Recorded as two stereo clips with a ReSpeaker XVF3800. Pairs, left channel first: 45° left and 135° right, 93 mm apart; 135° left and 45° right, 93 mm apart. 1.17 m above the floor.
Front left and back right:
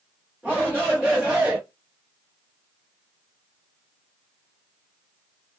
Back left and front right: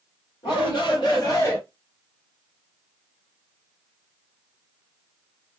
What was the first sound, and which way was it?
A shout, 145° left.